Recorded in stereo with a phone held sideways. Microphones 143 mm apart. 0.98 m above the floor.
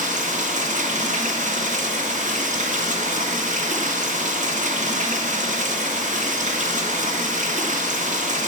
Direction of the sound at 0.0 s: 60° right (ahead or behind).